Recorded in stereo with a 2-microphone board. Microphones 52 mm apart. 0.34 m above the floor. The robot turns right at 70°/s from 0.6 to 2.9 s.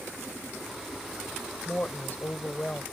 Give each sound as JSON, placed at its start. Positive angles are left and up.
{"t": 1.6, "sound": "a woman speaking", "azimuth_deg": 50}